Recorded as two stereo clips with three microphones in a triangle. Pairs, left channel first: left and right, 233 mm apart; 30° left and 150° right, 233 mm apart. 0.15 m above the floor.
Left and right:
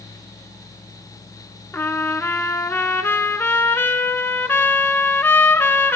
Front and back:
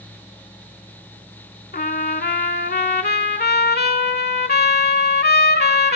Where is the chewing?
No chewing in this recording.